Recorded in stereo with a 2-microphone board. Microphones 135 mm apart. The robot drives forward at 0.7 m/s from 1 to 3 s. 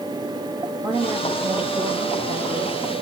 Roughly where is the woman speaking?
Right.